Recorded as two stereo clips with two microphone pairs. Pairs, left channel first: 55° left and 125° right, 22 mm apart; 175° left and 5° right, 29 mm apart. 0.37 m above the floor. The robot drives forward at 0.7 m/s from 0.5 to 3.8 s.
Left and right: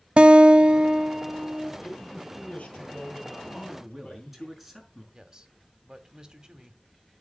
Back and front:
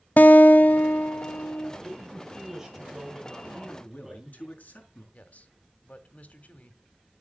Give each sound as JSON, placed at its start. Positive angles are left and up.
{"t": 0.2, "sound": "a guitar", "azimuth_deg": -160, "distance_m": 0.5}
{"t": 1.8, "sound": "a man speaking", "azimuth_deg": 70, "distance_m": 9.0}
{"t": 3.5, "sound": "a man speaking", "azimuth_deg": 155, "distance_m": 5.5}
{"t": 5.1, "sound": "a man speaking", "azimuth_deg": -175, "distance_m": 2.0}